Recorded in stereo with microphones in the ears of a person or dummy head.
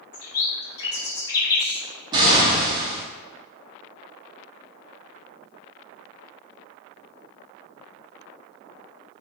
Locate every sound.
0.1 s a bird: 20° left (ahead or behind), 1.6 m
2.1 s an explosion: 20° right (ahead or behind), 1.1 m